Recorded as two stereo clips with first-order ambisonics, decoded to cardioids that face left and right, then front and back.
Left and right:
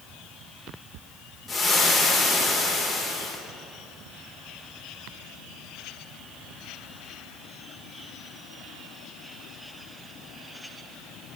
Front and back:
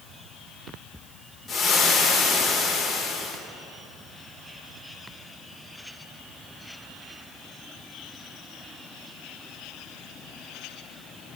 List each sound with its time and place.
1.5 s frying: 35° left, 0.5 m